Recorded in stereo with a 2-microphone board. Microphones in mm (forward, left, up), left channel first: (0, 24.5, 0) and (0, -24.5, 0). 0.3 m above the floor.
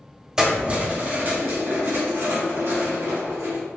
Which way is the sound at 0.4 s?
10° right (ahead or behind).